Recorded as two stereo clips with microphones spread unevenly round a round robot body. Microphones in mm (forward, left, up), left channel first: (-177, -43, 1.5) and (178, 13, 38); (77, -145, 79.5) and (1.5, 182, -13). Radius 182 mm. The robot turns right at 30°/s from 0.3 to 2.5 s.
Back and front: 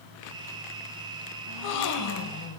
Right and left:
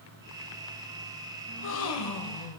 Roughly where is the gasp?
Behind right.